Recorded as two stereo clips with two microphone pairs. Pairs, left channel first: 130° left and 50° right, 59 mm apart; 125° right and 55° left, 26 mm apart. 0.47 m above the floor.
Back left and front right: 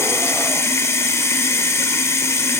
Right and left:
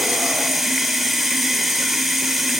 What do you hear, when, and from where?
0.0 s running water: 145° left, 1.4 m